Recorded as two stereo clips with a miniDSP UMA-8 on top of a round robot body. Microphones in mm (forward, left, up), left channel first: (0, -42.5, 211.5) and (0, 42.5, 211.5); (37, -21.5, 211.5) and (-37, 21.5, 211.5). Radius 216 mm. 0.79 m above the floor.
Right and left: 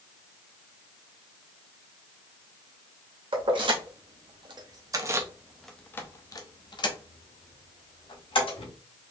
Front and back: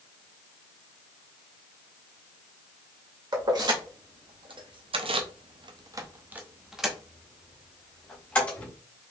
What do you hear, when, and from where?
3.3 s keys jangling: 110° left, 1.6 m; by 8.7 s 105° right, 2 m